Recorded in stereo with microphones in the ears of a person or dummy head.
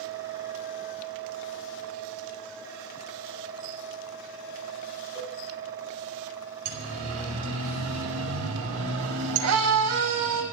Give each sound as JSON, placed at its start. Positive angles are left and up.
{"t": 5.2, "sound": "a cowbell", "side_deg": -20, "distance_m": 5.5}
{"t": 6.7, "sound": "a siren", "side_deg": -80, "distance_m": 5.0}